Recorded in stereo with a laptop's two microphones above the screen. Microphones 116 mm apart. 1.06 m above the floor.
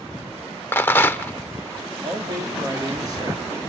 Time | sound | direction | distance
0.7 | a rattle | 20° left (ahead or behind) | 0.7 m
2.0 | a man speaking | 35° right (ahead or behind) | 2.5 m